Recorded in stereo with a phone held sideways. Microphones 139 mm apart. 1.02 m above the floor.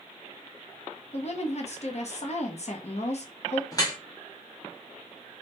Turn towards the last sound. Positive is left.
turn(degrees=25)  # may be behind; listen again after turning